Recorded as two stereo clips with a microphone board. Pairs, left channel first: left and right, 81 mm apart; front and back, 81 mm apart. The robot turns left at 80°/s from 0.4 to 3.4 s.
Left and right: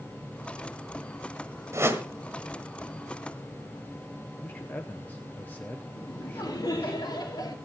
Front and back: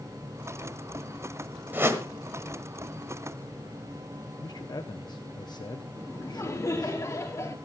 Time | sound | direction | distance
1.7 | a whoosh | 125° right | 1.4 m
4.4 | a man speaking | 25° left | 0.8 m
6.0 | laughter | 55° left | 2.5 m